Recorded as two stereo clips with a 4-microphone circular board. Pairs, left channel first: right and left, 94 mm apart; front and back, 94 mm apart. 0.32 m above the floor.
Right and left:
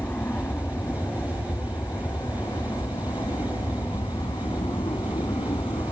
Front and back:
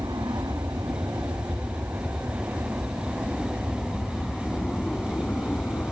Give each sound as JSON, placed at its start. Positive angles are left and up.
{"t": 0.0, "sound": "an aircraft", "azimuth_deg": -150}